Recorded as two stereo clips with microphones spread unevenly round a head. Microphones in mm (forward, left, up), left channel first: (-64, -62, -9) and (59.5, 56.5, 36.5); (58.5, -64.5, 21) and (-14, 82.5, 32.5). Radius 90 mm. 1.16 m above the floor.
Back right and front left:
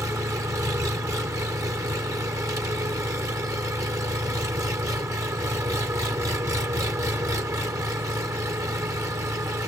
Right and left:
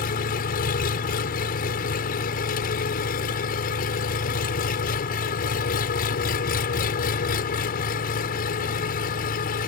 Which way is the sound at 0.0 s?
30° right.